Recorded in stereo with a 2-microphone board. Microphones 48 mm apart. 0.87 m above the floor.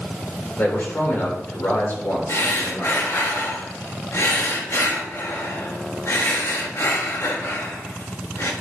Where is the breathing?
65° left (ahead or behind), 1.3 m.